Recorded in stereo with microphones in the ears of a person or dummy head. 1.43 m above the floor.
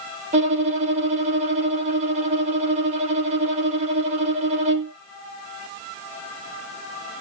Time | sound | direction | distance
0.3 | a violin | 45° right (ahead or behind) | 0.8 m